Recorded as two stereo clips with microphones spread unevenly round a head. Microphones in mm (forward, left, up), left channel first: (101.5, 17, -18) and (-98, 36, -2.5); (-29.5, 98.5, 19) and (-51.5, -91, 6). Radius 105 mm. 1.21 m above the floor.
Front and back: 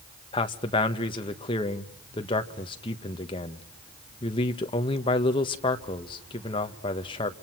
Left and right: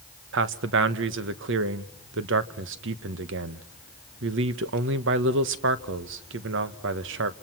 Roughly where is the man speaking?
Right.